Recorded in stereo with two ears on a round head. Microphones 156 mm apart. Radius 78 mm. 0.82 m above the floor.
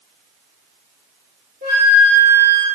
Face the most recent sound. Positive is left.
turn(degrees=-60)  # may be behind; listen again after turning